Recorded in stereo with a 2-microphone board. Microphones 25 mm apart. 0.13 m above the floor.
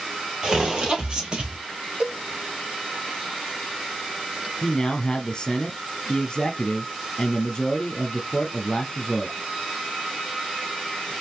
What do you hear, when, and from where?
0.4 s footsteps: 25° right (ahead or behind), 3.5 m; by 1.6 s 35° right (ahead or behind), 2 m
2.0 s a cowbell: 45° right (ahead or behind), 2.5 m
4.6 s a man speaking: 25° left (ahead or behind), 2 m